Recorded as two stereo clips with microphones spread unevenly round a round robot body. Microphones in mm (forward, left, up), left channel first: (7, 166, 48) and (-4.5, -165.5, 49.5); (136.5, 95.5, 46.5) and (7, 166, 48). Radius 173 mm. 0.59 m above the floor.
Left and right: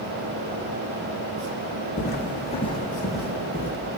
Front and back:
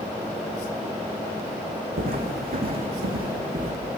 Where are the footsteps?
150° left, 1.7 m; by 3.7 s 160° right, 1.3 m.